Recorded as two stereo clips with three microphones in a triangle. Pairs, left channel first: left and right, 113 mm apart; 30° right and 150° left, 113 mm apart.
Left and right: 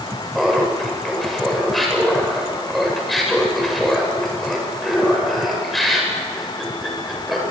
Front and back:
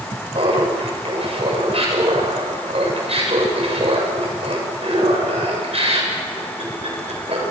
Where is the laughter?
Straight behind, 7.5 m.